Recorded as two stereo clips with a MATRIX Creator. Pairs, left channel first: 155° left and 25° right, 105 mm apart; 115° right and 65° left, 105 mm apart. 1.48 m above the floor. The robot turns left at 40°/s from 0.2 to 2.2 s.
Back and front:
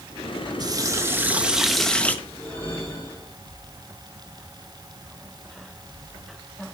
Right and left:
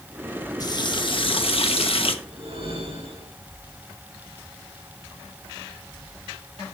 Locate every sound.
0.6 s a running tap: 65° right, 1.1 m; by 2.1 s 130° right, 1.1 m
2.2 s a whoosh: 85° left, 5 m